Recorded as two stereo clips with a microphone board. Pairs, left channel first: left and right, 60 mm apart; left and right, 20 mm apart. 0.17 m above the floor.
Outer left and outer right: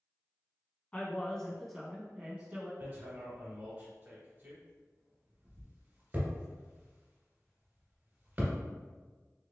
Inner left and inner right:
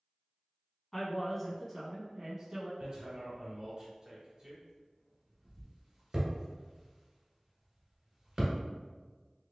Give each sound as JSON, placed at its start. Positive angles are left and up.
{"t": 0.9, "sound": "a man speaking", "side_deg": 20, "distance_m": 1.1}
{"t": 2.8, "sound": "hammering", "side_deg": -30, "distance_m": 1.6}